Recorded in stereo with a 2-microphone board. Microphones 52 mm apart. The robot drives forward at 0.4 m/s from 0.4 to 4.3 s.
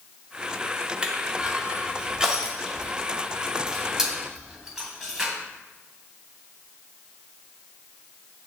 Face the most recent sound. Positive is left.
turn(degrees=-10)  # may be behind; listen again after turning